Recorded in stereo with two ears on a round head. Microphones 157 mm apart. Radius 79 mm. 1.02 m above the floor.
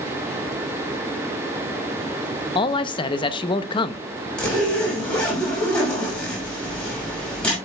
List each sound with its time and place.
2.5 s a man speaking: 30° left (ahead or behind), 0.8 m
4.4 s a zipper: 5° left (ahead or behind), 6.5 m